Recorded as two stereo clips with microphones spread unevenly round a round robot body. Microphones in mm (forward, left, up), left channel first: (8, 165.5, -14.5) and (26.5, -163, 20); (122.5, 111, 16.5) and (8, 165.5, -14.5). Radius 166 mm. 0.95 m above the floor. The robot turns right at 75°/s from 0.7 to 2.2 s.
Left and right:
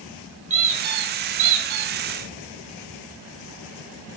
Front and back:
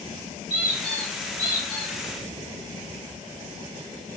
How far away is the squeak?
About 1.3 m.